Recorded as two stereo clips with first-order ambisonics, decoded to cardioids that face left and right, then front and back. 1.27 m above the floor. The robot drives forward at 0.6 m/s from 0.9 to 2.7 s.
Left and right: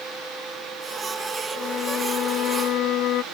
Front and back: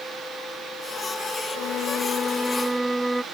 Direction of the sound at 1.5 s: 30° left.